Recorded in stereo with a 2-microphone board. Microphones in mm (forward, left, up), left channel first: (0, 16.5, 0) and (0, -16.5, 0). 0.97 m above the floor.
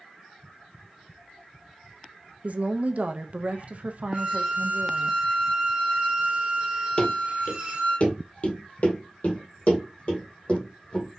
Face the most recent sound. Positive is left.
turn(degrees=40)  # may be behind; listen again after turning